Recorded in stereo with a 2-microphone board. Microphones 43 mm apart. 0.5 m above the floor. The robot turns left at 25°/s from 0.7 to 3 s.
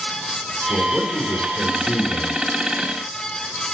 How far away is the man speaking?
About 4.5 m.